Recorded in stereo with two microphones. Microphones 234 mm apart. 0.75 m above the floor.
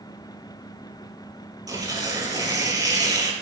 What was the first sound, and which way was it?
Tearing paper, 15° right (ahead or behind).